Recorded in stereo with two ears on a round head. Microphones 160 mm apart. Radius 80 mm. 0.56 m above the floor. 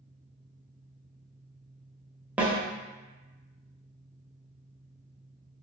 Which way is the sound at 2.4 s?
10° right (ahead or behind).